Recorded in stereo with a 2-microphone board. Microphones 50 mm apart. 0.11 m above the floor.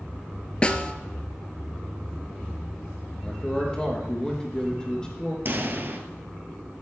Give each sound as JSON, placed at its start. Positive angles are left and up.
{"t": 0.6, "sound": "a snare drum", "side_deg": 25, "distance_m": 0.9}
{"t": 3.2, "sound": "a man speaking", "side_deg": 15, "distance_m": 3.5}
{"t": 5.5, "sound": "a pop", "side_deg": -45, "distance_m": 1.4}